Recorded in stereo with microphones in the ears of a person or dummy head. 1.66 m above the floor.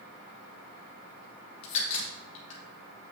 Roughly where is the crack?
Left.